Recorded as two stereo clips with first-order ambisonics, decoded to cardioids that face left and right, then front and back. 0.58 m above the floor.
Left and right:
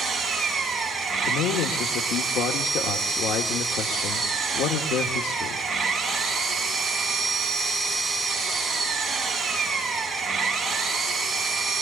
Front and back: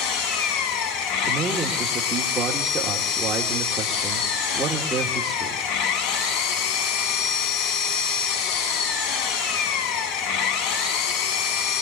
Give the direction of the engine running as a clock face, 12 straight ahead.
12 o'clock.